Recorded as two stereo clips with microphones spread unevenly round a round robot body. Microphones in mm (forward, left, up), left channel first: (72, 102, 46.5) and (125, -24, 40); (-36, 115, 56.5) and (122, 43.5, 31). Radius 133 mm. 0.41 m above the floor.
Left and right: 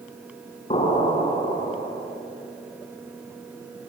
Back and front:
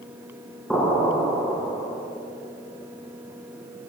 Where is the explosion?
65° left, 6.5 m.